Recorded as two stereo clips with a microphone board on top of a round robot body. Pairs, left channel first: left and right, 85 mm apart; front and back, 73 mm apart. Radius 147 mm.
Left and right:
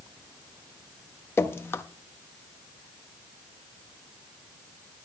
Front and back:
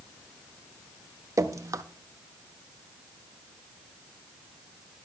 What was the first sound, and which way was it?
Dripping, 145° left.